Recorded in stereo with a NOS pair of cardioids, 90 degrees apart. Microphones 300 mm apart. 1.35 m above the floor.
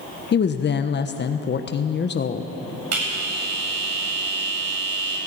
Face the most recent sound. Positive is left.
turn(degrees=-55)